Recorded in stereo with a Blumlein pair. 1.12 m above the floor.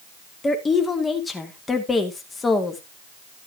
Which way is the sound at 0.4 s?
10° left.